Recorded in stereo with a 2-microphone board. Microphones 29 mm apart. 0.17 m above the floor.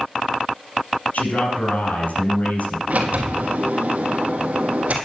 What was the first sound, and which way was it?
A man speaking, 65° left (ahead or behind).